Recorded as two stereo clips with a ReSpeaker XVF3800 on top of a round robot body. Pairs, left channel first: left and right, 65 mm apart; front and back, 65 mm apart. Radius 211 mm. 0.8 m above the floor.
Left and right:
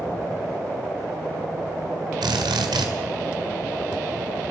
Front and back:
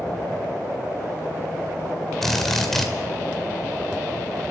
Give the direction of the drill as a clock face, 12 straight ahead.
3 o'clock.